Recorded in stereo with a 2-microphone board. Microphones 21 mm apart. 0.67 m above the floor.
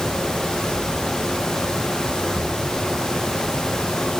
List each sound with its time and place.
Only background noise.